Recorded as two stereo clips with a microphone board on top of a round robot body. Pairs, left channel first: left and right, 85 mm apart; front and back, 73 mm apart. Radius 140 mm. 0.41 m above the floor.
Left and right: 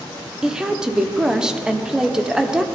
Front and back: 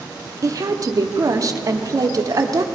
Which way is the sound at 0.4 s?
170° right.